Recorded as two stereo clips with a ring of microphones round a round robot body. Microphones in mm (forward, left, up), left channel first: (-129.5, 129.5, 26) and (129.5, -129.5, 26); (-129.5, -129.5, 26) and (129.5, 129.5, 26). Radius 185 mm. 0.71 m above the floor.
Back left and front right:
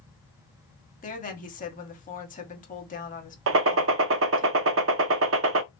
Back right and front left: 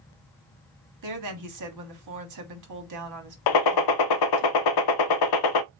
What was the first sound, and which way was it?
A woman speaking, 70° left.